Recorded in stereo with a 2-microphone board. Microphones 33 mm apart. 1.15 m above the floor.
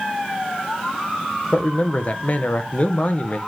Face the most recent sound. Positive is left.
turn(degrees=45)  # may be behind; listen again after turning